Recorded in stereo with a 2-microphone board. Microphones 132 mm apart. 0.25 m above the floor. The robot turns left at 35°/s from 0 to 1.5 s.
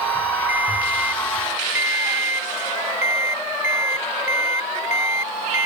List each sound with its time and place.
0.5 s a ringtone: 100° left; by 5.7 s 65° left